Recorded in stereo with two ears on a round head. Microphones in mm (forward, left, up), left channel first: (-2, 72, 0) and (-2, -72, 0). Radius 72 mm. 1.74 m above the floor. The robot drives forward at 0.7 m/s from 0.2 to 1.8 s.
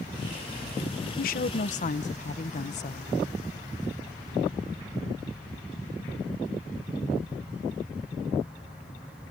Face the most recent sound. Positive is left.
turn(degrees=50)  # may be behind; listen again after turning